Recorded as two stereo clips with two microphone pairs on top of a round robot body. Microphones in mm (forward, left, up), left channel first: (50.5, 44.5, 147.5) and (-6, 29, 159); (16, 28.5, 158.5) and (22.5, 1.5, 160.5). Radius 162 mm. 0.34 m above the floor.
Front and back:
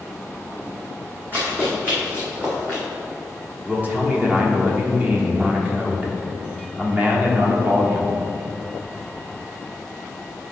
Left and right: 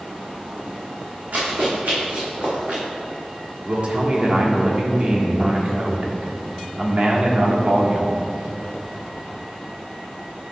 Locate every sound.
1.3 s running footsteps: 105° right, 2 m; by 2.8 s 95° right, 3 m
3.6 s a man speaking: 100° right, 1.5 m